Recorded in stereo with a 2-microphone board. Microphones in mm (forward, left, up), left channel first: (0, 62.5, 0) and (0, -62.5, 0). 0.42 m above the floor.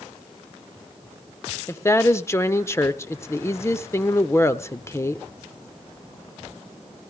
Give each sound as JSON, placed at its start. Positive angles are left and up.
{"t": 1.7, "sound": "a woman speaking", "side_deg": 20, "distance_m": 0.8}